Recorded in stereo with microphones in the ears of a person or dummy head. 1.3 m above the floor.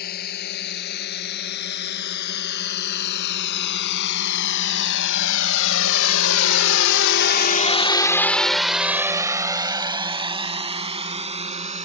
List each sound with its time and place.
0.0 s a drone: 55° left (ahead or behind); by 11.8 s 30° right (ahead or behind)